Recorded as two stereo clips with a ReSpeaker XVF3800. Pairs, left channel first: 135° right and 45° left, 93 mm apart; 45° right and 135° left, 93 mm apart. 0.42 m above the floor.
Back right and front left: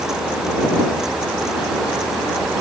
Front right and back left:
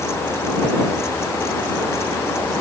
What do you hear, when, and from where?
Only background noise.